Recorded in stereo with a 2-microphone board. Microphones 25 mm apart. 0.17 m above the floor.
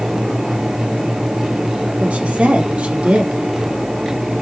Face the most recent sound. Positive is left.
turn(degrees=-60)  # may be behind; listen again after turning